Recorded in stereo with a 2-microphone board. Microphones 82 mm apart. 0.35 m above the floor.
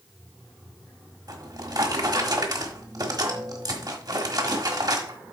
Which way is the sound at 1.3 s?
55° right (ahead or behind).